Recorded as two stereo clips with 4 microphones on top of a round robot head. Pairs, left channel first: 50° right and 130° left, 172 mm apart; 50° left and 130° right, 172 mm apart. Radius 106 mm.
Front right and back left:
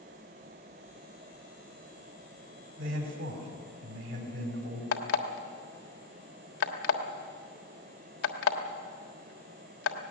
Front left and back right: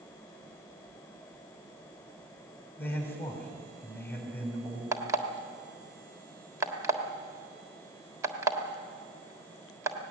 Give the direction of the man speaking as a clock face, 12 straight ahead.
8 o'clock.